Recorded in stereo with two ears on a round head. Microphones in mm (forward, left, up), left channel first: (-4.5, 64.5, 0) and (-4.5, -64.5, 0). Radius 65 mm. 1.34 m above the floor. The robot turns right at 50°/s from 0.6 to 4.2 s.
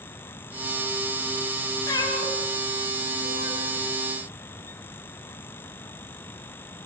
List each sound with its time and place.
1.9 s a cat meowing: 20° left (ahead or behind), 4 m; by 3.7 s 65° left (ahead or behind), 4 m